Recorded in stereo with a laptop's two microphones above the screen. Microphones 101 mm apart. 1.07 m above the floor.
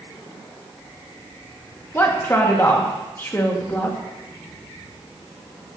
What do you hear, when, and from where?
1.9 s a woman speaking: 20° left (ahead or behind), 1.5 m